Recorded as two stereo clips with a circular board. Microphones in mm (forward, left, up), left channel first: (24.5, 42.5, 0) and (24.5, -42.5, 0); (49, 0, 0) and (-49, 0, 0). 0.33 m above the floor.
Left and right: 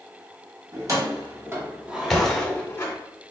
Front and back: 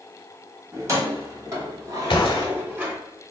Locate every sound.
0.7 s keys jangling: 125° right, 1.4 m; by 3.0 s 115° left, 0.9 m
2.1 s a gunshot: 5° left, 0.8 m